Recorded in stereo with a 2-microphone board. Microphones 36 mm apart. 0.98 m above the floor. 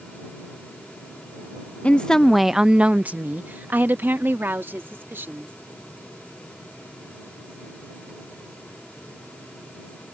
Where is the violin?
I don't hear a violin.